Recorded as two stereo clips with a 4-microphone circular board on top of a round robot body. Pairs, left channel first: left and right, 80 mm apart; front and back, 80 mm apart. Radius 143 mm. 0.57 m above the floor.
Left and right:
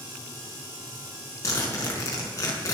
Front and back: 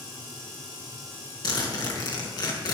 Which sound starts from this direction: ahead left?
A zipper, at 1.4 s.